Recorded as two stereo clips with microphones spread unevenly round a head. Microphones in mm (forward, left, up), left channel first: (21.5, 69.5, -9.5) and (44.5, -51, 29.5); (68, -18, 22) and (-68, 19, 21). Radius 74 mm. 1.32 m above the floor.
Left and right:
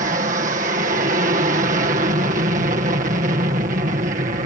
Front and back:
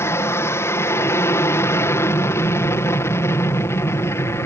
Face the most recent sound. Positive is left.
turn(degrees=-80)